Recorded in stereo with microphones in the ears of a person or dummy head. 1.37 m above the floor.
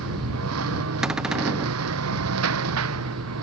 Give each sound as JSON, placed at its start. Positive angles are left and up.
{"t": 0.0, "sound": "a lawn mower", "side_deg": -80}
{"t": 1.0, "sound": "a cupboard door", "side_deg": -5}